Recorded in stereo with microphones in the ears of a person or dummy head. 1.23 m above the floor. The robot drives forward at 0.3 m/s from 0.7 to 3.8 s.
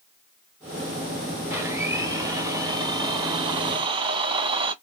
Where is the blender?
15° right (ahead or behind), 1.3 m; by 4.7 s 30° right (ahead or behind), 0.7 m.